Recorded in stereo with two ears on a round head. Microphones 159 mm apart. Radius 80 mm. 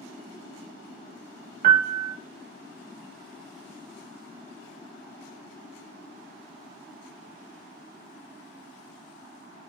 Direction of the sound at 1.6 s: 45° right (ahead or behind).